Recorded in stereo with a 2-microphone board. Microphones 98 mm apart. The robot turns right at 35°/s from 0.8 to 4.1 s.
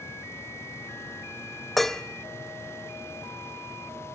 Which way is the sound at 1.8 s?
Centre (ahead or behind).